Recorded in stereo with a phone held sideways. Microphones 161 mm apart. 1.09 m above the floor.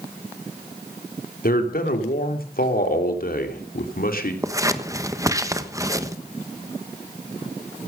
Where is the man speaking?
65° left (ahead or behind), 3 m.